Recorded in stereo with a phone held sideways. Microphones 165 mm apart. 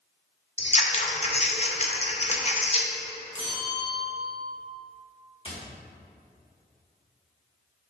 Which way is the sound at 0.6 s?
40° left (ahead or behind).